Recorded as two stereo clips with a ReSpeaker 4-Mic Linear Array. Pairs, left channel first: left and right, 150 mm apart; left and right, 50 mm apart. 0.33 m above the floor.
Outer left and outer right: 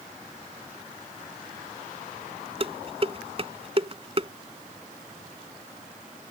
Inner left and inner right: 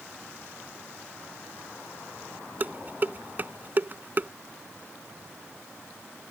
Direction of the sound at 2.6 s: 40° right (ahead or behind).